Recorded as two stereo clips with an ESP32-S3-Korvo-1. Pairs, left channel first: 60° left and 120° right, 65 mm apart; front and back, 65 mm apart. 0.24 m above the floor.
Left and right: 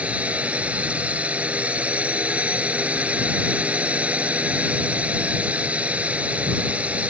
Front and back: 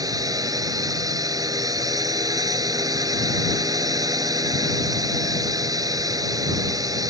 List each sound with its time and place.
0.0 s a drone: 170° left